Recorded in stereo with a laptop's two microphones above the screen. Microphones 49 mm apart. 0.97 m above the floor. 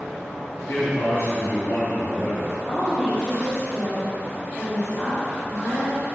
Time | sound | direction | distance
0.7 | a man speaking | 70° left (ahead or behind) | 2.5 m
2.7 | a woman speaking | 20° left (ahead or behind) | 2 m